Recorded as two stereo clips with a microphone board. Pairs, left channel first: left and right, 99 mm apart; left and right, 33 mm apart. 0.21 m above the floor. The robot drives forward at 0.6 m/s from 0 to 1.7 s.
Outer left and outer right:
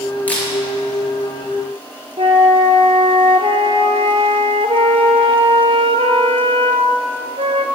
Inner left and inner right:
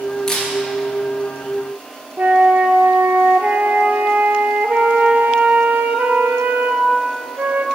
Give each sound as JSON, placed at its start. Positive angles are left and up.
{"t": 0.3, "sound": "a camera shutter", "side_deg": 15, "distance_m": 2.5}
{"t": 2.2, "sound": "a flute", "side_deg": -75, "distance_m": 0.6}